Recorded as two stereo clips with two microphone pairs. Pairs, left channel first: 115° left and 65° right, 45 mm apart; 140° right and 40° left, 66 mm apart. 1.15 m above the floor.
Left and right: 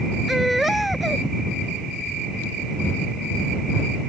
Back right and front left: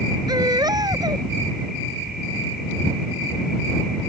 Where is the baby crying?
20° left.